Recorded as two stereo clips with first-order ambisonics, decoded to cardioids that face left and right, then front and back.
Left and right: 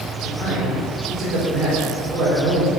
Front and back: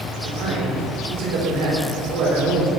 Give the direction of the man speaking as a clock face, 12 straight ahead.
6 o'clock.